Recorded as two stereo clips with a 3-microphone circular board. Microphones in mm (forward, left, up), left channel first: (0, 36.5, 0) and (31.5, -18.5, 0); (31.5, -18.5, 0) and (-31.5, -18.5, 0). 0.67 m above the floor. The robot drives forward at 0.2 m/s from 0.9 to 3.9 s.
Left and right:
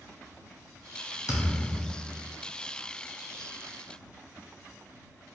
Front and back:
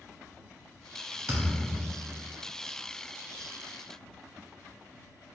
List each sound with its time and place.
1.3 s a thud: 135° left, 1.2 m; by 2.4 s 145° left, 1.3 m